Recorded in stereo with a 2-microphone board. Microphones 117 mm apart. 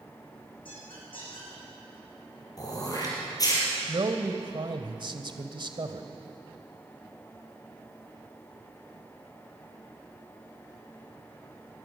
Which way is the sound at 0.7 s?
50° left (ahead or behind).